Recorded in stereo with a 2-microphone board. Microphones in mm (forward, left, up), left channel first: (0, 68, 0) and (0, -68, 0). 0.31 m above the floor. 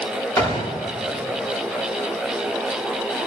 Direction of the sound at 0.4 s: 20° left (ahead or behind).